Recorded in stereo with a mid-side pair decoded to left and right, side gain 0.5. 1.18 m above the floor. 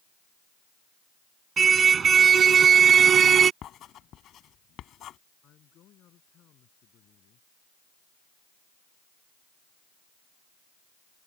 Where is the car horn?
40° right; by 3.5 s 50° right.